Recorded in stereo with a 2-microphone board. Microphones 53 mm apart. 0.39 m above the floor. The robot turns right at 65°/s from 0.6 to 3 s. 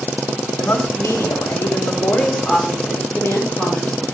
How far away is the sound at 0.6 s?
About 4.5 m.